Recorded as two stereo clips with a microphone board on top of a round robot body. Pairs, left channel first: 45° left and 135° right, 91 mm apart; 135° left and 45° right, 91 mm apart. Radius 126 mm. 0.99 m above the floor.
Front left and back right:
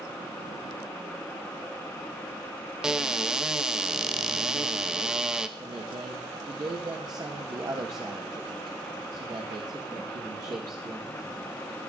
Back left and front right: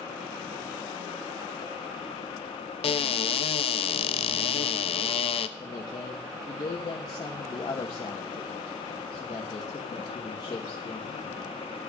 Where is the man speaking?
Straight behind, 1.5 m.